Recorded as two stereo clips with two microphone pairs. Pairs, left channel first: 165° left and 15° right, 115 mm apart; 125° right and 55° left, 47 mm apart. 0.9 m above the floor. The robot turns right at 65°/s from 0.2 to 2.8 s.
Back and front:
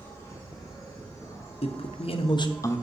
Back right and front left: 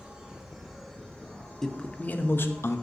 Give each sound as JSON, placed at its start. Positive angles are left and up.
{"t": 0.0, "sound": "an insect", "azimuth_deg": 120, "distance_m": 1.6}
{"t": 1.6, "sound": "a man speaking", "azimuth_deg": 155, "distance_m": 0.6}